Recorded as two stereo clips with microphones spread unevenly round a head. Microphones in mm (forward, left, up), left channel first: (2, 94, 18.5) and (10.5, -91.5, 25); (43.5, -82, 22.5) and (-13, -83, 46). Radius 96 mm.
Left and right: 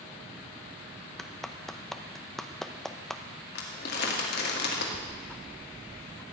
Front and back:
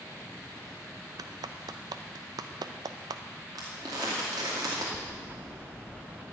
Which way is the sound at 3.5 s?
130° left.